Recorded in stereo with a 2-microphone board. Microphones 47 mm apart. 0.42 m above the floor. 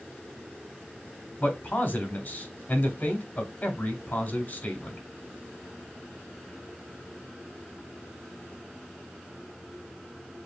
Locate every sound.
1.4 s a man speaking: 35° left (ahead or behind), 1.0 m